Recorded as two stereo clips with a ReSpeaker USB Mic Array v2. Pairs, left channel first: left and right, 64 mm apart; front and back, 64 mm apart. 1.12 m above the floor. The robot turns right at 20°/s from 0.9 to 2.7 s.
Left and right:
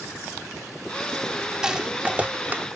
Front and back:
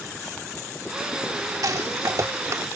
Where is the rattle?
170° right; by 2.6 s 150° right.